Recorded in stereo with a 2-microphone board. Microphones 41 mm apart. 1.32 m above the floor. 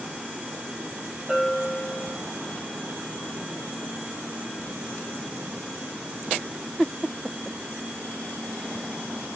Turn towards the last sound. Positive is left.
turn(degrees=20)  # may be behind; listen again after turning